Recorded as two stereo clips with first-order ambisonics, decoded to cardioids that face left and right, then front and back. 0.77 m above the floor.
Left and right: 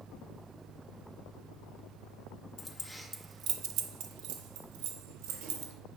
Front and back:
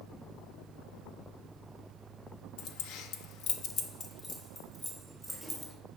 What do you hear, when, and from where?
2.6 s keys jangling: 30° left, 0.8 m; by 5.7 s 90° right, 2 m